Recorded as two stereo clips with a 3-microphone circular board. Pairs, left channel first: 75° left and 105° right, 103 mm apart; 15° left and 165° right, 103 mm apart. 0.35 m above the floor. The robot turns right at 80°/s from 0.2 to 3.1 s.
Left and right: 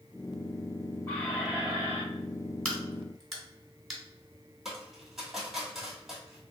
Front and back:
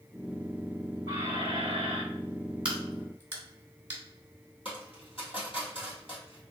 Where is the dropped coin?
15° right, 1.8 m.